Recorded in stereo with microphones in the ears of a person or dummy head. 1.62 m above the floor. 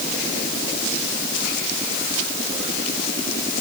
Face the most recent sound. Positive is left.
No sound to turn to.